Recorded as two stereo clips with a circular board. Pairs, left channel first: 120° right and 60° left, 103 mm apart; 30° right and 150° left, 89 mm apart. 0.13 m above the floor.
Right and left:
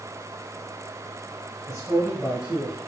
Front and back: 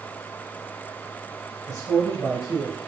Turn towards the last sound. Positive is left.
turn(degrees=165)